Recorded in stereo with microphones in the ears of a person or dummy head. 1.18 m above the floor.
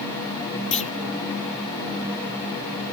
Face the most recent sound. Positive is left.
turn(degrees=35)  # may be behind; listen again after turning